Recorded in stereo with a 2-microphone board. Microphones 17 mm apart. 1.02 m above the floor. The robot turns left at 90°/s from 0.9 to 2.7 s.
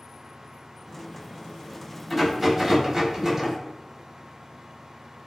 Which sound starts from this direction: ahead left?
A rattle, at 2.1 s.